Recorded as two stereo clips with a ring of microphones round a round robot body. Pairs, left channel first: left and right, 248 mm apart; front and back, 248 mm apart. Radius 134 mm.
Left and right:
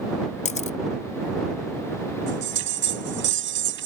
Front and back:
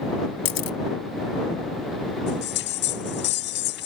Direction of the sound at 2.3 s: 50° right.